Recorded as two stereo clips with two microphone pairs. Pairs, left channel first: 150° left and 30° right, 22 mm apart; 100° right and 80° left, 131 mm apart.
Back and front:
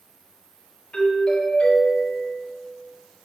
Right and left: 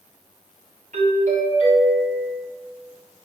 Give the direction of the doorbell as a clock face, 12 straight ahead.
9 o'clock.